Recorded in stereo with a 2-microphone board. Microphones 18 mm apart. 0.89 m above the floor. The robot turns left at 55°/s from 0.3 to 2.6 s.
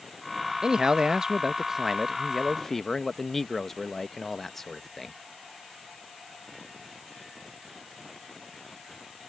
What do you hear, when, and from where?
0.6 s a man speaking: 90° right; by 5.2 s 160° left